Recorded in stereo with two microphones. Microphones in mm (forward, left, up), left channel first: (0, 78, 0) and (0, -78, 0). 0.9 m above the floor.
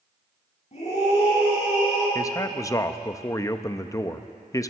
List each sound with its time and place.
0.7 s a scream: 45° left (ahead or behind), 7.5 m; by 2.0 s 40° left (ahead or behind), 9 m
2.1 s a man speaking: 20° left (ahead or behind), 0.6 m